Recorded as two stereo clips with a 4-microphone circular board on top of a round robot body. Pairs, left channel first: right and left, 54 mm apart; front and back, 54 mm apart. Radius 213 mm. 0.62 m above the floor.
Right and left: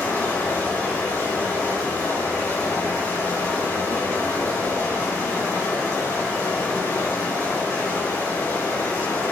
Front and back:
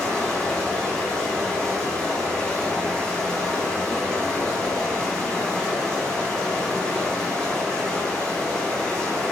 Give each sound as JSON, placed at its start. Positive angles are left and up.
{"t": 0.0, "sound": "running water", "azimuth_deg": -75, "distance_m": 5.5}